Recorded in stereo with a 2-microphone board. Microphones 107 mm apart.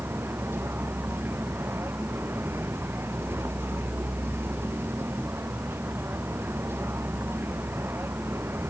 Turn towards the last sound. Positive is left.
turn(degrees=-20)  # may be behind; listen again after turning